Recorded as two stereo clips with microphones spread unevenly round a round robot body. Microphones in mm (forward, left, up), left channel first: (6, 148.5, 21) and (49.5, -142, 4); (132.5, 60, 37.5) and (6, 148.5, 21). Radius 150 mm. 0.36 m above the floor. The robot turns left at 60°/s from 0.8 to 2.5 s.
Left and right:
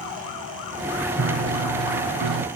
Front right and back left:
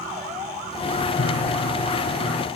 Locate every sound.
1.2 s a piano: 25° right, 0.8 m; by 2.5 s 105° right, 0.8 m